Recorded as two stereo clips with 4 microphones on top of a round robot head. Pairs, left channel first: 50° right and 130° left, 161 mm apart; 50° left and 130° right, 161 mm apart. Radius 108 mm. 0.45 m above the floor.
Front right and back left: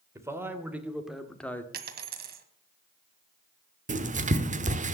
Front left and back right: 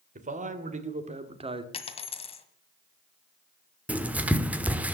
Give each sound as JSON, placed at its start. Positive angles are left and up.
{"t": 0.1, "sound": "a man speaking", "azimuth_deg": -160, "distance_m": 2.5}
{"t": 1.7, "sound": "a dropped coin", "azimuth_deg": 100, "distance_m": 1.7}
{"t": 3.9, "sound": "writing", "azimuth_deg": 150, "distance_m": 1.3}